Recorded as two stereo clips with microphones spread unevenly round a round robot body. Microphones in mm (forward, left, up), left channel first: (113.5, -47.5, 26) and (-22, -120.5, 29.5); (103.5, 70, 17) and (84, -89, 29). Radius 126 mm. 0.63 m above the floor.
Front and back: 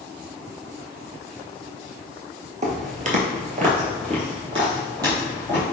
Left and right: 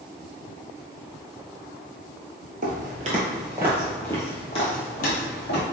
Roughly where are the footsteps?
Behind right.